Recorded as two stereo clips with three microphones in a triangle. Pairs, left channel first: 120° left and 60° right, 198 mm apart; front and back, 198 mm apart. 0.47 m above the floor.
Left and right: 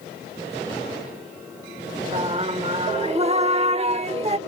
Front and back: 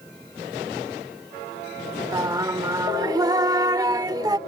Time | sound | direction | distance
2.1 | singing | 110° right | ?